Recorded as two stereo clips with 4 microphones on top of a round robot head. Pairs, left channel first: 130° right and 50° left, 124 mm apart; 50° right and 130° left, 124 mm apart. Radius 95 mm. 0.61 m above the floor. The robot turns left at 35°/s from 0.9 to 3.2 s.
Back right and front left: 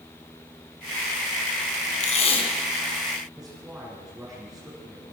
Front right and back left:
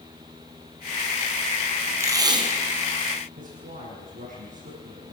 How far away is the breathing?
No breathing in this recording.